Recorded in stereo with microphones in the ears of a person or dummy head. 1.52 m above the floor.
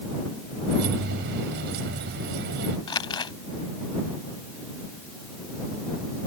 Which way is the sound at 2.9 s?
15° left (ahead or behind).